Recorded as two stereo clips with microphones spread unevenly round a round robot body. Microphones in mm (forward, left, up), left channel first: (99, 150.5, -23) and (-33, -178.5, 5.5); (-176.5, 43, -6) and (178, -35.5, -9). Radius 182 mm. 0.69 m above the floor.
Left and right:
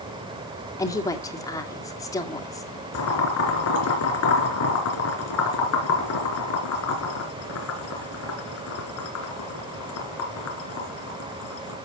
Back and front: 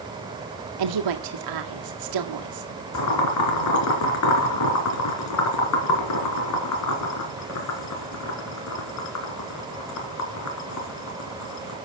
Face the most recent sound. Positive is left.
turn(degrees=120)